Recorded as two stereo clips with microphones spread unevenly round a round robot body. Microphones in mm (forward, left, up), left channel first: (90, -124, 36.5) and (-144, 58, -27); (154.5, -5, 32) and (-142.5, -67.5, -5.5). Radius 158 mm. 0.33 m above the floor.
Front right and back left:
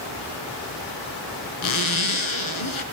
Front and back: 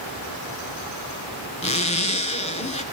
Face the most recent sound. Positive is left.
turn(degrees=-60)